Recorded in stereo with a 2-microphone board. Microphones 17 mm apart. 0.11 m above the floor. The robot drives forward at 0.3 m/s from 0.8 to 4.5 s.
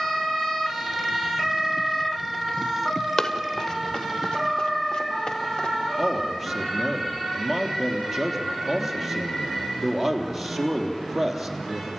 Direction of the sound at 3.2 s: 35° left (ahead or behind).